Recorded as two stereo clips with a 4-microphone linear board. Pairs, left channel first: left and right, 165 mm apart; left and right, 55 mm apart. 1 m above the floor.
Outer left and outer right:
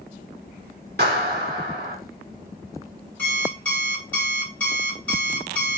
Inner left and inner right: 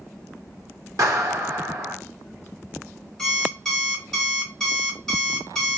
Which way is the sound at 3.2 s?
10° left (ahead or behind).